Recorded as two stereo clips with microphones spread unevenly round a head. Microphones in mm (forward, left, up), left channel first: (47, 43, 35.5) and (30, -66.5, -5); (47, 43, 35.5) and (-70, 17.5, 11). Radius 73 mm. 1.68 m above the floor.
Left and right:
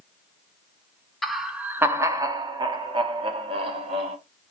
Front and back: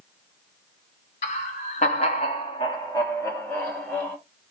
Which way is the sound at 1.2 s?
5° left.